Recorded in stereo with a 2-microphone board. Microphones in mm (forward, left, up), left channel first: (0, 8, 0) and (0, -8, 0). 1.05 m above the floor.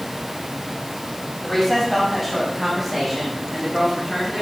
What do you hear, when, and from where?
1.4 s a woman speaking: 10° left (ahead or behind), 7 m; by 4.4 s 10° right (ahead or behind), 10 m